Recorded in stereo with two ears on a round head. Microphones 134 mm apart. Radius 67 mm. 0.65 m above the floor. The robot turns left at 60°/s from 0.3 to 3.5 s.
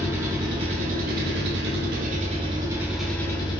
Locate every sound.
0.0 s an engine running: 20° right, 0.9 m; by 3.6 s 150° left, 0.9 m